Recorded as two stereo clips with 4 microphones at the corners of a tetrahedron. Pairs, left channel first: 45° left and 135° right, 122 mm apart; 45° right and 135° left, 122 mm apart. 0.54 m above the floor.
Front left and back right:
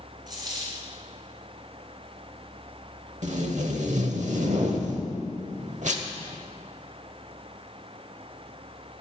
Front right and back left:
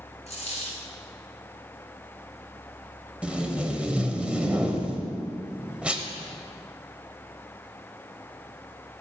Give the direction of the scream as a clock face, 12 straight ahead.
I don't hear a scream.